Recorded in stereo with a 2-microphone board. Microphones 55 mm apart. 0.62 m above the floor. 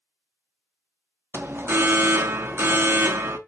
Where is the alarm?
45° right (ahead or behind), 0.6 m.